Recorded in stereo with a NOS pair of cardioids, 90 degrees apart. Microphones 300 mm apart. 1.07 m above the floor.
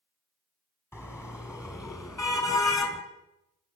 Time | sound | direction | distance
0.9 | a car horn | 10° left | 4.5 m